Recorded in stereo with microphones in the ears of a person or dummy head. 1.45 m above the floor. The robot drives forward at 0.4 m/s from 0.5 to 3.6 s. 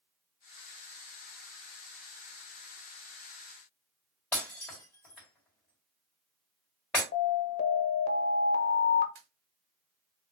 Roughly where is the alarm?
Left.